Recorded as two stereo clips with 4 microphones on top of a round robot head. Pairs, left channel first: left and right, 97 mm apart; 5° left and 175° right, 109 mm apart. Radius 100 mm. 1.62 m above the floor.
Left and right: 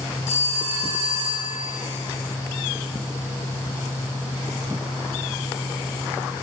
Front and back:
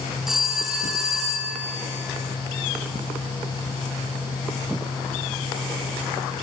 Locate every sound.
0.3 s a phone ringing: 100° left, 7.5 m